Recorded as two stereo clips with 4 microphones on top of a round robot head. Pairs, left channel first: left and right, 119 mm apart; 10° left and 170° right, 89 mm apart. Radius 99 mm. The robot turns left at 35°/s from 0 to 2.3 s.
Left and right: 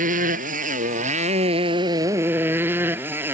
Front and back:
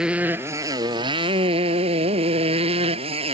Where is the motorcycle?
85° right; by 3.3 s 165° right.